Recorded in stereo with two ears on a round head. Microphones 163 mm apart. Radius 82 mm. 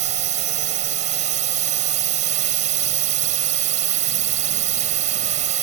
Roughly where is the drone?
Right.